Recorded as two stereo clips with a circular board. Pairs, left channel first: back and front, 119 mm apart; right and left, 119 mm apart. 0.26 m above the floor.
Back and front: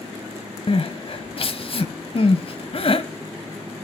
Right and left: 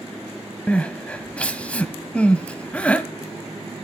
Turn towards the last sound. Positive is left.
turn(degrees=-165)